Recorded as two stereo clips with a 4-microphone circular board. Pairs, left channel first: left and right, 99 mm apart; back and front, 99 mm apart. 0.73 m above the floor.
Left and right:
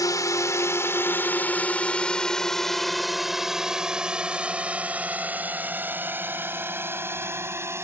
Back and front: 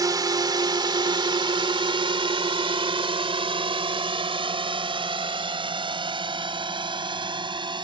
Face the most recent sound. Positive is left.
turn(degrees=-30)